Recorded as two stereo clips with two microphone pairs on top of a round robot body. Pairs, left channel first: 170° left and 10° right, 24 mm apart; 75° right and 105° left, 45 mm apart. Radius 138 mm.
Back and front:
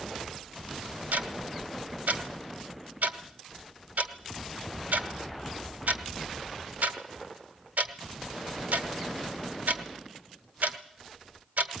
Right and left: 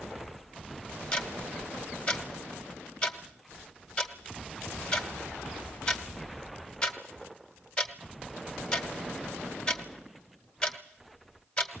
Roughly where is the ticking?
Ahead.